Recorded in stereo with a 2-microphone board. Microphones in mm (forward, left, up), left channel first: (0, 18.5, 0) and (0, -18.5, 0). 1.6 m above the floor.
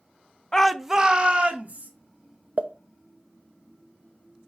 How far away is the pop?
About 0.6 m.